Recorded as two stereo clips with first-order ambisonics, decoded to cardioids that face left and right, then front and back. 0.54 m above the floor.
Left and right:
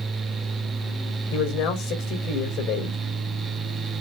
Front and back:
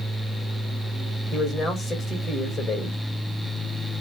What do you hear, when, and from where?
1.3 s a man speaking: 65° left, 2.5 m